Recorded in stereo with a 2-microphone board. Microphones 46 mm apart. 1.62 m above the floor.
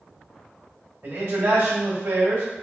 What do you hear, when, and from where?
1.0 s a man speaking: 75° right (ahead or behind), 1.7 m